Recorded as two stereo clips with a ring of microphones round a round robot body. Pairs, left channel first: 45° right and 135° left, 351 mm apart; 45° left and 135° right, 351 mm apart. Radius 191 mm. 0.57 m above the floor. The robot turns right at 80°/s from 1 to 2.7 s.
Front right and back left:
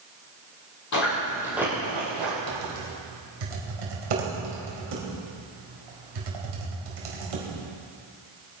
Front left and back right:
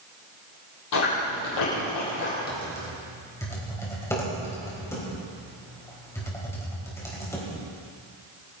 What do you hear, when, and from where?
0.9 s chewing: straight ahead, 7.5 m; by 2.3 s 110° left, 7.5 m
2.5 s typing on a keyboard: 110° left, 4 m; by 7.5 s 125° left, 4 m